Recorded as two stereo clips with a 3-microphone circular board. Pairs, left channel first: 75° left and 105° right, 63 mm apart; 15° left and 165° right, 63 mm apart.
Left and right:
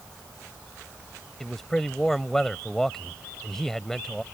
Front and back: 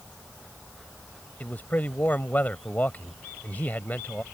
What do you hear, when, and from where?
1.4 s a man speaking: straight ahead